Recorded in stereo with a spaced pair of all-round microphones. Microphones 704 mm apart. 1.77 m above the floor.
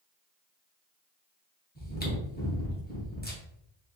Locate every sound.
1.8 s chewing: 15° left (ahead or behind), 0.9 m